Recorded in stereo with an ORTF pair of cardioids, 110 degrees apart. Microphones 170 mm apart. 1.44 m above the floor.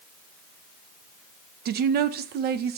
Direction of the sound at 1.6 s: 65° right.